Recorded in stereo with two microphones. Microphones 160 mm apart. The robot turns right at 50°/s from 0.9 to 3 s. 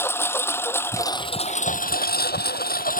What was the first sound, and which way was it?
A lawn mower, 15° left.